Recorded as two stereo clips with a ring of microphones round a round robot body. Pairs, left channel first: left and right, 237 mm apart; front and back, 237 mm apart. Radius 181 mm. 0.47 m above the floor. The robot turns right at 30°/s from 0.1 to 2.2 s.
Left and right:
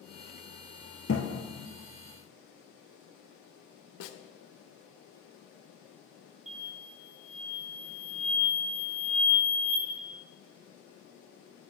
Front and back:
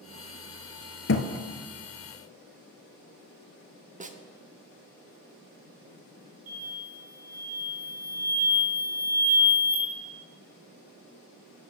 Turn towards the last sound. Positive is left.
turn(degrees=-150)